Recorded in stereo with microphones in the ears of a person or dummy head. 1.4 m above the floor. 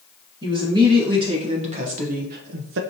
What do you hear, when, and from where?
0.4 s a woman speaking: 25° right (ahead or behind), 1.6 m; by 2.8 s 65° right (ahead or behind), 0.5 m